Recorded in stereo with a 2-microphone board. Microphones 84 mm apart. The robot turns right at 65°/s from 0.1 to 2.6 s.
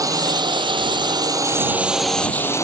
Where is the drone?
45° right (ahead or behind); by 2.6 s 35° left (ahead or behind).